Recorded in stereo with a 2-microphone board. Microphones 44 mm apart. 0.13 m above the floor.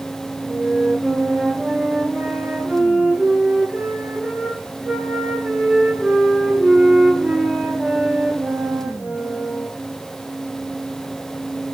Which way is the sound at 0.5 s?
30° right (ahead or behind).